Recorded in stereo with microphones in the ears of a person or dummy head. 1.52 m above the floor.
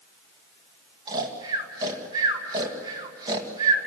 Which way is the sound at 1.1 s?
20° right (ahead or behind).